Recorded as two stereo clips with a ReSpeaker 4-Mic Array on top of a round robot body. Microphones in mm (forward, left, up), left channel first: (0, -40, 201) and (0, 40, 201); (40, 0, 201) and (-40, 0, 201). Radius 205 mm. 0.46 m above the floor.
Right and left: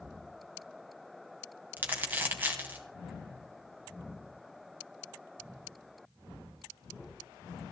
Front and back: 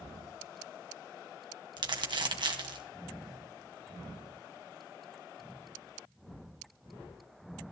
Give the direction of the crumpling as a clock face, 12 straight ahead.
7 o'clock.